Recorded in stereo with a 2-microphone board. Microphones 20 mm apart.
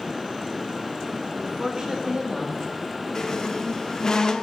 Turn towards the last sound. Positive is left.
turn(degrees=35)  # may be behind; listen again after turning